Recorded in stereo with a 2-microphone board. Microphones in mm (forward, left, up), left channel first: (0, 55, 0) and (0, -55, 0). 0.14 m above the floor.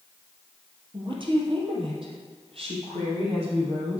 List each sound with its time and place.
0.9 s a woman speaking: 50° right (ahead or behind), 3.5 m; by 4.0 s 65° right (ahead or behind), 6 m